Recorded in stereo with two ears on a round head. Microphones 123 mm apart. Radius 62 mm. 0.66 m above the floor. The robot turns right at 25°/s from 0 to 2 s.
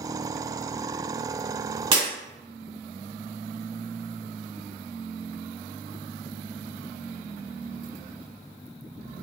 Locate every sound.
1.9 s breaking glass: 35° right (ahead or behind), 1.5 m